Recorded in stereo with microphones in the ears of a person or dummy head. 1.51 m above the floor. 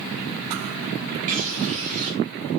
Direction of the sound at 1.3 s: 40° right (ahead or behind).